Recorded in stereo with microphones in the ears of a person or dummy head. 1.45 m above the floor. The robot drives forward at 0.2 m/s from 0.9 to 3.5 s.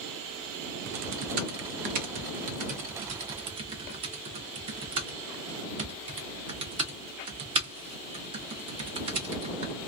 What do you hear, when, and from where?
0.9 s typing on a keyboard: 50° right (ahead or behind), 0.5 m; by 9.7 s 35° right (ahead or behind), 0.7 m